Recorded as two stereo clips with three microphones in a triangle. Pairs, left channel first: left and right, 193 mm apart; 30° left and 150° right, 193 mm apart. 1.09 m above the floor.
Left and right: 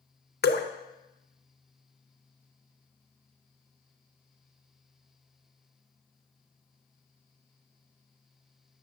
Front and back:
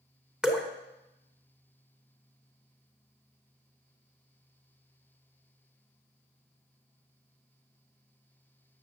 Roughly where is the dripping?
Behind left.